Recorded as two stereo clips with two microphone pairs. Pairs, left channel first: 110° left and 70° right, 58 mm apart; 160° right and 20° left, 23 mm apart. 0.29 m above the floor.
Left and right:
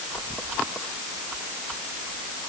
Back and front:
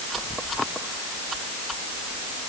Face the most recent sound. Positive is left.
No sound to turn to.